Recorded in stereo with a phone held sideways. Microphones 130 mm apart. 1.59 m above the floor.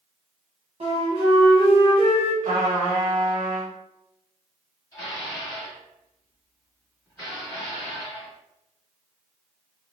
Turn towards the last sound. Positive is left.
turn(degrees=25)  # may be behind; listen again after turning